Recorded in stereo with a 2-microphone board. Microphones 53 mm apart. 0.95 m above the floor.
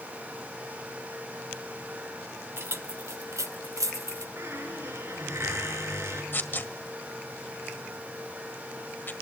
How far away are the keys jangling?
About 1.1 m.